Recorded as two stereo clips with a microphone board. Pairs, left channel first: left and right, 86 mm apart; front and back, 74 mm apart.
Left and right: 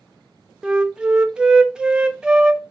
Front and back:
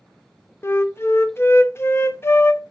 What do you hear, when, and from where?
0.6 s a flute: 15° right, 0.6 m